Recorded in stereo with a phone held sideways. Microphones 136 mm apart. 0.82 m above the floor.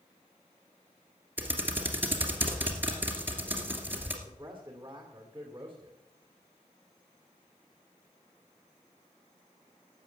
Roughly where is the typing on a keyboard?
Centre.